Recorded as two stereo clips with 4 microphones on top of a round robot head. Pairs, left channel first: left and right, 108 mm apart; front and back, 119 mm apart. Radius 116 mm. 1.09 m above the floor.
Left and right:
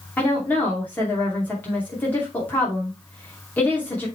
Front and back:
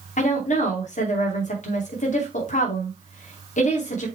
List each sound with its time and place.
0.2 s a woman speaking: 10° left, 2.5 m